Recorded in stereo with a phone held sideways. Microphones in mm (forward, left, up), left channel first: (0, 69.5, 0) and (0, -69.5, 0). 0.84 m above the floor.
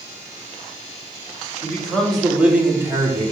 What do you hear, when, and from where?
1.6 s a man speaking: 15° left (ahead or behind), 2.0 m; by 3.3 s 30° right (ahead or behind), 2 m